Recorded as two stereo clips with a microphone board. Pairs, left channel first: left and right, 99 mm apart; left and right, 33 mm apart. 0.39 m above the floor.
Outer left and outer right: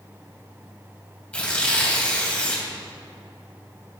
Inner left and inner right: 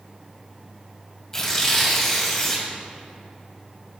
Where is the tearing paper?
15° left (ahead or behind), 1.9 m.